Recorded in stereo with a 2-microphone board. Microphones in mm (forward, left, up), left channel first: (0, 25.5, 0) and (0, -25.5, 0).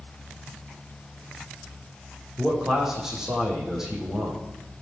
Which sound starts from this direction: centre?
A man speaking, at 2.4 s.